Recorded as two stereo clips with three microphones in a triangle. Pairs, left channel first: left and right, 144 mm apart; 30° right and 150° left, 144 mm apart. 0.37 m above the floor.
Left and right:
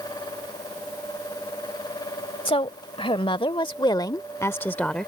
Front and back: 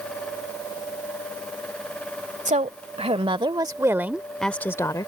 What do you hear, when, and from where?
2.5 s a woman speaking: 130° left; by 5.1 s 5° left